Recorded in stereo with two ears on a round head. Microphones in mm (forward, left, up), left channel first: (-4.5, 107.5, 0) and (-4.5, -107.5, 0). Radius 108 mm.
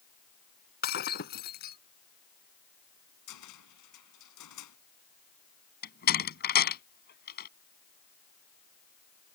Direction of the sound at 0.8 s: 45° left (ahead or behind).